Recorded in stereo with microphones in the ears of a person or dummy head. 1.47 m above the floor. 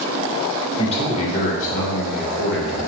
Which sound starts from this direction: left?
A man speaking, at 0.8 s.